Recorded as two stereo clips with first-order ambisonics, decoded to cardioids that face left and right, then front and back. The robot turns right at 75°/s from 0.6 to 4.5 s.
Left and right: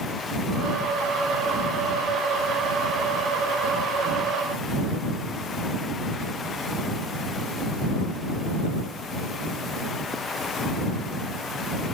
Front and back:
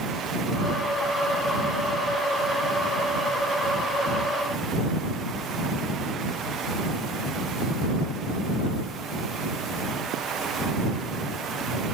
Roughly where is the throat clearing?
I don't hear throat clearing.